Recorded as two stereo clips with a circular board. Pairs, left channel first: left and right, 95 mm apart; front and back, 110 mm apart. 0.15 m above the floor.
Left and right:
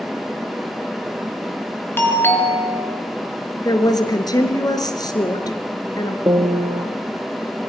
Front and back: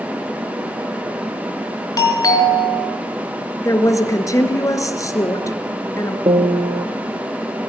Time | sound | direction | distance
2.0 | a doorbell | 35° left | 3 m
3.6 | a woman speaking | 55° left | 2 m
6.3 | a piano | 140° right | 2 m